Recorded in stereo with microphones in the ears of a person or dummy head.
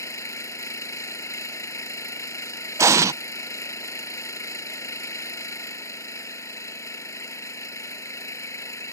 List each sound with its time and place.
0.0 s an engine running: 15° left (ahead or behind)
2.8 s an explosion: 15° right (ahead or behind)